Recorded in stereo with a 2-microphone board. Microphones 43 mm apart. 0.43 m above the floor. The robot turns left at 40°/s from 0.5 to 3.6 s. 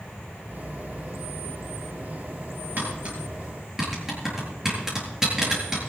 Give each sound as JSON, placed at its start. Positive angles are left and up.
{"t": 2.8, "sound": "tapping", "side_deg": -45, "distance_m": 7.0}